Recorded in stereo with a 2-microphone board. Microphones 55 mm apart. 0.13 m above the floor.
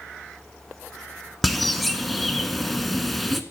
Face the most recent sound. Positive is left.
turn(degrees=5)  # may be behind; listen again after turning